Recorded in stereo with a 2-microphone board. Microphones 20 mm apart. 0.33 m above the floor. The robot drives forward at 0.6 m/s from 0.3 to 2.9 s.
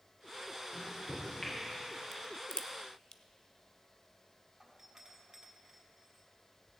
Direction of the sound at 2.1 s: 45° left (ahead or behind).